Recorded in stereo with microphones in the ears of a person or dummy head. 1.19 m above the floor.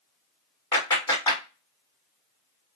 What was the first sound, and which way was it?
A clap, 15° left (ahead or behind).